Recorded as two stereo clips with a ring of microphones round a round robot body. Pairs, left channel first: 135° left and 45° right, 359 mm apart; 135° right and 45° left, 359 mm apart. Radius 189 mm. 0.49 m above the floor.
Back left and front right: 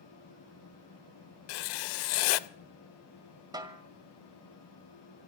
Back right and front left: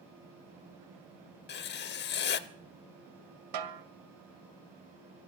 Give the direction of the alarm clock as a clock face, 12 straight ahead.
No alarm clock in this recording.